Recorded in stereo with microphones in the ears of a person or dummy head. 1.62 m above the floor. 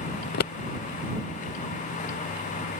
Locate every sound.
0.2 s scissors: 55° left (ahead or behind)